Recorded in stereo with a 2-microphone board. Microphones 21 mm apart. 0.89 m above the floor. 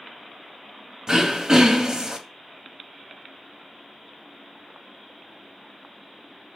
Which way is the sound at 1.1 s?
35° right (ahead or behind).